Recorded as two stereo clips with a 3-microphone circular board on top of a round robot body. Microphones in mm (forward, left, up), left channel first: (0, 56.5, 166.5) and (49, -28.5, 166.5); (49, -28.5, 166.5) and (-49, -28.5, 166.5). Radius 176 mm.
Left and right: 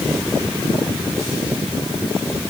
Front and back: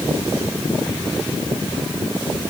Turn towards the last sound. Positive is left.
No sound to turn to.